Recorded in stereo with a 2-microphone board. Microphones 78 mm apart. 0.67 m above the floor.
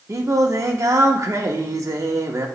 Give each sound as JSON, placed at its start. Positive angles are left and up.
{"t": 0.1, "sound": "singing", "side_deg": -40, "distance_m": 0.9}